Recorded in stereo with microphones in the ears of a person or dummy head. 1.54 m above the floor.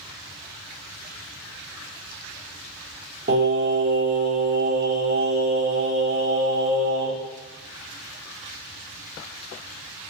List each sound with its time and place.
3.3 s singing: 50° right (ahead or behind), 1.1 m